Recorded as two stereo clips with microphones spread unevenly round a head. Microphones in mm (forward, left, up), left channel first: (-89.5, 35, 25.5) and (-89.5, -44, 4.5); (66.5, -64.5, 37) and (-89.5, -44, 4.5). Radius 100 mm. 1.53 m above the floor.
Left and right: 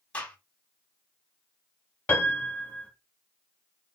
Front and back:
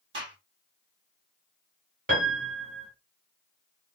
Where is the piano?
125° left, 1.8 m.